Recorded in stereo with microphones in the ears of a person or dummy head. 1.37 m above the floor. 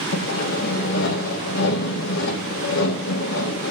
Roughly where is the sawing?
Left.